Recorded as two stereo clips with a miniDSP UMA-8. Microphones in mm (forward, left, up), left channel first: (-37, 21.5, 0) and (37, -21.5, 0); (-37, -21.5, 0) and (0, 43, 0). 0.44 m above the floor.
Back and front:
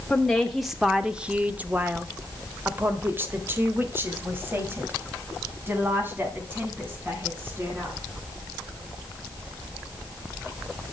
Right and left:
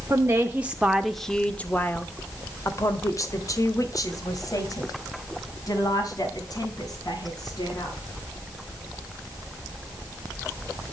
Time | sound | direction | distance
0.1 | a woman speaking | 70° left | 1.0 m